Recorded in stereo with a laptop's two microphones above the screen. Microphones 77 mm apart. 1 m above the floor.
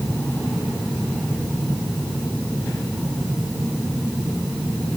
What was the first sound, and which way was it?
Only background noise.